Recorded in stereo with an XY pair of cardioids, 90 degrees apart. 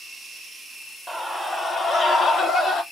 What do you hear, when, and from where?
1.1 s a scream: 10° left, 0.6 m; by 2.8 s 80° left, 1.4 m